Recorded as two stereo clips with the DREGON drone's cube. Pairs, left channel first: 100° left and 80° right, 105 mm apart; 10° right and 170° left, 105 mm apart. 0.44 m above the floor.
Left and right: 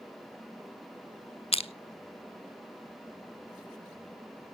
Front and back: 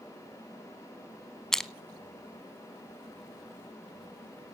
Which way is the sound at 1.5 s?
75° left.